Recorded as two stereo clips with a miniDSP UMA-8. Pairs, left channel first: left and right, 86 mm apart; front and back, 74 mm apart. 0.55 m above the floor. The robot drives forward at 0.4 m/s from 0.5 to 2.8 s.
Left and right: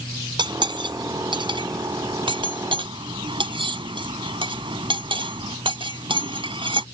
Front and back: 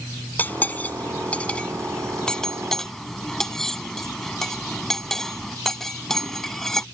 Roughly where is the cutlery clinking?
Ahead right.